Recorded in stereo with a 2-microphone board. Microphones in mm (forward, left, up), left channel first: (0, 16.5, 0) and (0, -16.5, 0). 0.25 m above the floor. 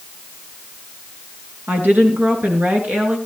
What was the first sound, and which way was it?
A woman speaking, 65° right (ahead or behind).